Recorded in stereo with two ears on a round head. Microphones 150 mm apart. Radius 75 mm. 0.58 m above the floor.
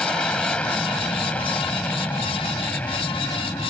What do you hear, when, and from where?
0.0 s an aircraft: 5° left (ahead or behind); by 3.7 s 10° left (ahead or behind)